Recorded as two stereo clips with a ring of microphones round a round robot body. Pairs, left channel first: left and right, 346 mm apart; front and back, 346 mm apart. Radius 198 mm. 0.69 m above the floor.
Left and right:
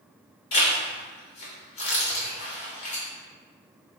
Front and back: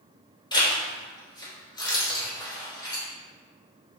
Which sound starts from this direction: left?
A zipper, at 0.5 s.